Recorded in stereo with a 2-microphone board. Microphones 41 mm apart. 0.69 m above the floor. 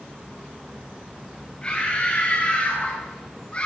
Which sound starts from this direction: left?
A scream, at 1.6 s.